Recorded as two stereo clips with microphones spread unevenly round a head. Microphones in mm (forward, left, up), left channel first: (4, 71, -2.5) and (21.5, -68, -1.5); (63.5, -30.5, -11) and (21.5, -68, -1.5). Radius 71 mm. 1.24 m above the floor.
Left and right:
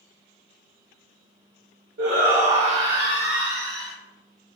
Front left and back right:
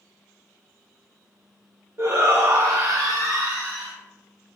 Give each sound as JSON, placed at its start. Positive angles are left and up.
{"t": 2.0, "sound": "a shout", "azimuth_deg": -105, "distance_m": 1.3}